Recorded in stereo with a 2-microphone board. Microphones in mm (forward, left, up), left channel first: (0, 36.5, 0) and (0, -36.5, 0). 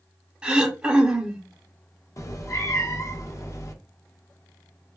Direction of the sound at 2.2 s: 45° left (ahead or behind).